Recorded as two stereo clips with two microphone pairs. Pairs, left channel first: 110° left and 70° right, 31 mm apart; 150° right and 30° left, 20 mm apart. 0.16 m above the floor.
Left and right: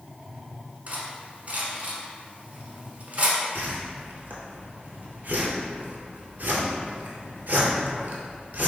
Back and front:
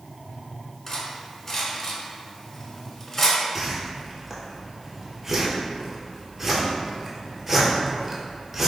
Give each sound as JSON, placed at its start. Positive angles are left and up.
{"t": 0.9, "sound": "cutlery clinking", "azimuth_deg": -90, "distance_m": 0.8}
{"t": 3.5, "sound": "a whoosh", "azimuth_deg": -45, "distance_m": 0.7}